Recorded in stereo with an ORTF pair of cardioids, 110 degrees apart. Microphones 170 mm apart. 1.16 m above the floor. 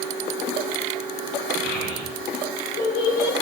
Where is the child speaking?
70° left, 6 m; by 3.3 s 75° left, 4 m.